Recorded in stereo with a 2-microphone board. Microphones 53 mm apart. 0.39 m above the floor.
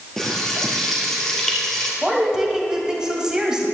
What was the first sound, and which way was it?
Frying, 10° left (ahead or behind).